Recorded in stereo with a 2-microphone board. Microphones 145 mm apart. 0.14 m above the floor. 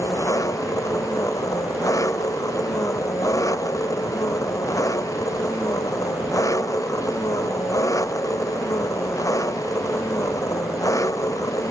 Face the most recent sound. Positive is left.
turn(degrees=20)  # may be behind; listen again after turning